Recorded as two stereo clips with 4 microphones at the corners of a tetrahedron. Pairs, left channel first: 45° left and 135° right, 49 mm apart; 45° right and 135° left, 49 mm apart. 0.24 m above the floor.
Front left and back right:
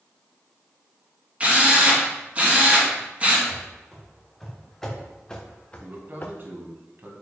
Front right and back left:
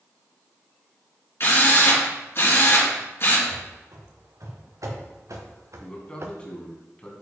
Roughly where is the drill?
Right.